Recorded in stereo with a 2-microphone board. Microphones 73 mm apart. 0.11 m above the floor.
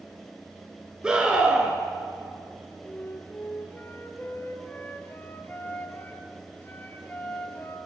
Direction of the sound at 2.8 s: 30° left (ahead or behind).